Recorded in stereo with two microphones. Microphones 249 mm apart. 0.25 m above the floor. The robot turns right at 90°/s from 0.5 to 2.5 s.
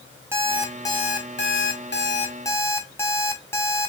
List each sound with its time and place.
0.3 s an alarm clock: 15° right, 1.1 m; by 3.9 s 165° left, 1.1 m